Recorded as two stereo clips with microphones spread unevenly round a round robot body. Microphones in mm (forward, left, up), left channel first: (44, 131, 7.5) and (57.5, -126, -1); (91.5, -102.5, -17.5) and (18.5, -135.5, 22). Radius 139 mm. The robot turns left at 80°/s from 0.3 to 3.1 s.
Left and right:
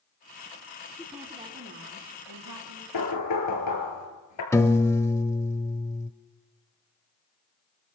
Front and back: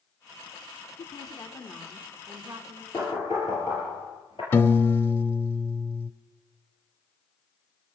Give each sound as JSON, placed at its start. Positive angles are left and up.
{"t": 1.0, "sound": "a woman speaking", "azimuth_deg": 15, "distance_m": 3.0}
{"t": 2.9, "sound": "knocking", "azimuth_deg": 100, "distance_m": 5.0}
{"t": 4.5, "sound": "a piano", "azimuth_deg": 15, "distance_m": 1.0}